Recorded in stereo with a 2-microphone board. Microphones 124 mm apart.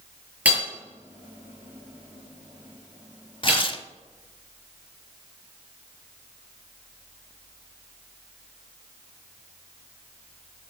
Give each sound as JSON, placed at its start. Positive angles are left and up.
{"t": 0.5, "sound": "hammering", "side_deg": -15, "distance_m": 5.0}
{"t": 3.4, "sound": "tearing paper", "side_deg": 45, "distance_m": 0.8}